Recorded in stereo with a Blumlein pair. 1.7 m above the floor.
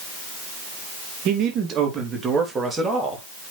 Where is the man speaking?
35° right, 2.5 m; by 3.2 s 5° right, 3.5 m.